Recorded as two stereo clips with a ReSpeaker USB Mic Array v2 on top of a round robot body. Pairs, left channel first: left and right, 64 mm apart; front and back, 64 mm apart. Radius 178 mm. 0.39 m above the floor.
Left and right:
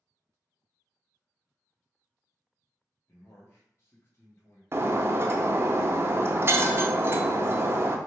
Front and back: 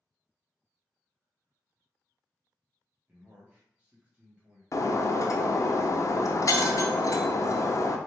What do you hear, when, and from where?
3.1 s a man speaking: 115° left, 1.6 m
4.7 s breaking glass: 35° right, 0.6 m